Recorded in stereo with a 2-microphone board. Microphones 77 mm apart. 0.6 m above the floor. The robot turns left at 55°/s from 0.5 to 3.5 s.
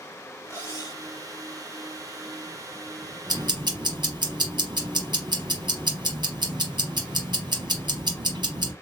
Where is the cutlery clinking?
35° left (ahead or behind), 1.9 m; by 1.0 s 65° left (ahead or behind), 1.9 m.